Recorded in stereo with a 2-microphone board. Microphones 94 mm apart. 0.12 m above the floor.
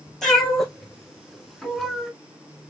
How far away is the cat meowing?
About 1.6 m.